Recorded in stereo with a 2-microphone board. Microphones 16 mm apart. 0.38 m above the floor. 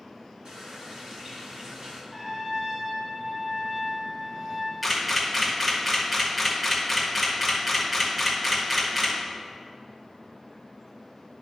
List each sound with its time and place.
0.5 s a running tap: 75° right (ahead or behind), 2.5 m
2.1 s a trumpet: 55° right (ahead or behind), 2 m
4.8 s a camera shutter: 10° right (ahead or behind), 1.6 m